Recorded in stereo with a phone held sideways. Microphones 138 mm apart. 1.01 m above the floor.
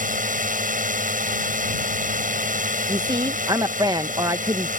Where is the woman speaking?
30° right (ahead or behind).